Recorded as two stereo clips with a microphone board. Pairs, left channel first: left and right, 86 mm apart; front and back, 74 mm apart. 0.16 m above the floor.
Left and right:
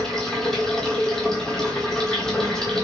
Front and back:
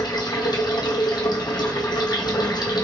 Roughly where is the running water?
Ahead.